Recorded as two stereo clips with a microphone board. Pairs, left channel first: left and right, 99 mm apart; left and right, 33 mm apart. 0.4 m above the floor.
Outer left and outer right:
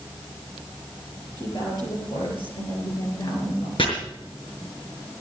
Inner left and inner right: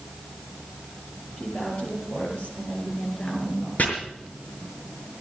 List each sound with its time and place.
1.4 s a woman speaking: 45° left (ahead or behind), 7.5 m; by 3.7 s 65° left (ahead or behind), 5.5 m
3.8 s chopping: 65° left (ahead or behind), 5.5 m